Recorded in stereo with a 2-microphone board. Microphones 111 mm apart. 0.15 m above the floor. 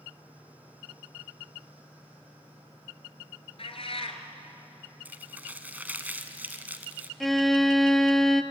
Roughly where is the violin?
Centre.